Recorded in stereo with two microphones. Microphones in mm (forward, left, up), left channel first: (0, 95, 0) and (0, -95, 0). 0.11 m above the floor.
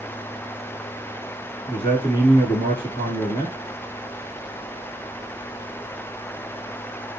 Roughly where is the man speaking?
Left.